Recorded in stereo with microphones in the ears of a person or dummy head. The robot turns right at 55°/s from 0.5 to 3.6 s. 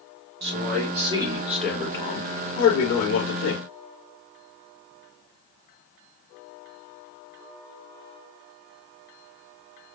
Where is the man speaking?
60° right, 2.5 m; by 3.6 s 110° left, 2.5 m.